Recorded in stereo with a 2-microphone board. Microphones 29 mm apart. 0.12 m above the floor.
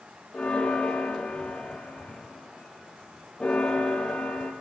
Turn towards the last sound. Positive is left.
turn(degrees=40)  # may be behind; listen again after turning